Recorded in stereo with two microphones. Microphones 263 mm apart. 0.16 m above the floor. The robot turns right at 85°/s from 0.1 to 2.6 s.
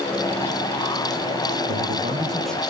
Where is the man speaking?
65° right, 5.5 m; by 2.6 s 10° left, 5.5 m.